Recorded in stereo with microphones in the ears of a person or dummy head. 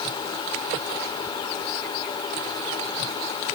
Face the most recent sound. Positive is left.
No sound to turn to.